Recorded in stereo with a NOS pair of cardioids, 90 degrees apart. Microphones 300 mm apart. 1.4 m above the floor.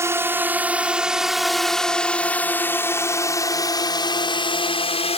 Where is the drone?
10° right; by 5.2 s 20° left.